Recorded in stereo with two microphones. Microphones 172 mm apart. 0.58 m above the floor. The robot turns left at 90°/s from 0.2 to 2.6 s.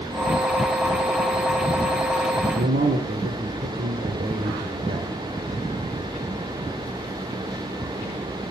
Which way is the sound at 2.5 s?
60° right (ahead or behind).